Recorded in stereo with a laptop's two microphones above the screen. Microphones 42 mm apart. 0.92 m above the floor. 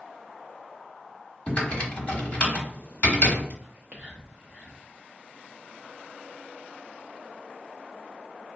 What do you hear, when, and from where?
1.5 s typing on a keyboard: 35° left (ahead or behind), 1.3 m
3.6 s whispering: 25° right (ahead or behind), 0.5 m